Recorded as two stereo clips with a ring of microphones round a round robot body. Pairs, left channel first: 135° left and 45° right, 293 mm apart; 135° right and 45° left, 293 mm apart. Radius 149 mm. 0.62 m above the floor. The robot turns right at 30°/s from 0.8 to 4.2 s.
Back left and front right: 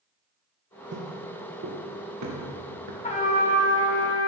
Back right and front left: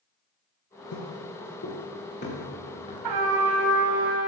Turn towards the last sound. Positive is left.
turn(degrees=100)